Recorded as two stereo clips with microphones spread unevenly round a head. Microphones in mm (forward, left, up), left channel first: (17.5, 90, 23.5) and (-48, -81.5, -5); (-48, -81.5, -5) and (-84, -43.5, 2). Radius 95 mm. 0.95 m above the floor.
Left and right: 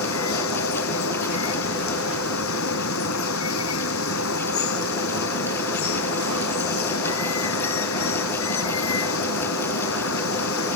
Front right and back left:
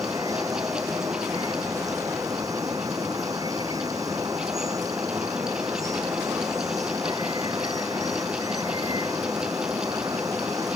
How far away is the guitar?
No guitar in this recording.